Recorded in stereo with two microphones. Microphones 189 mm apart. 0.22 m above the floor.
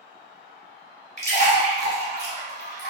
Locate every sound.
1.2 s a splash: 70° left (ahead or behind), 1.2 m